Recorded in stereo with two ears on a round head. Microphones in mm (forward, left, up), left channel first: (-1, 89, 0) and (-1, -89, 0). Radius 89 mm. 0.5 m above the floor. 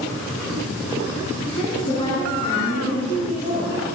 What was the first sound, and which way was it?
A woman speaking, 25° left (ahead or behind).